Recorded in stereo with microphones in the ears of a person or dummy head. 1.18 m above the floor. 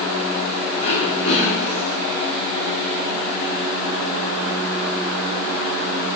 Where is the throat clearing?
70° left (ahead or behind), 4.5 m.